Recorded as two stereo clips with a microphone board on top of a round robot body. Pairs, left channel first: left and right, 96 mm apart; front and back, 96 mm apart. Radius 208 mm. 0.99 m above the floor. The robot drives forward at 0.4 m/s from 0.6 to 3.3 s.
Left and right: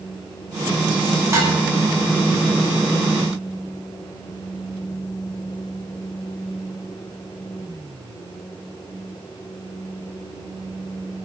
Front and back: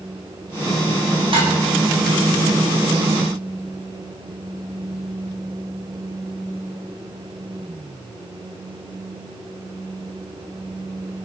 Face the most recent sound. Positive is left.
turn(degrees=-155)